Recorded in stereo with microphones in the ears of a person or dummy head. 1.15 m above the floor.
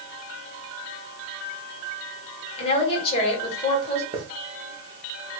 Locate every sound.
2.6 s a woman speaking: 30° left (ahead or behind), 1.6 m
4.1 s a hiss: 25° right (ahead or behind), 0.7 m